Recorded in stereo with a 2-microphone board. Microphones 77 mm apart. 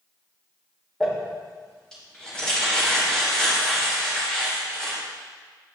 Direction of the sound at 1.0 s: 10° left (ahead or behind).